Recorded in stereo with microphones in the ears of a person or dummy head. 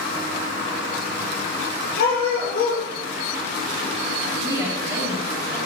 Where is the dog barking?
65° left (ahead or behind), 4.5 m.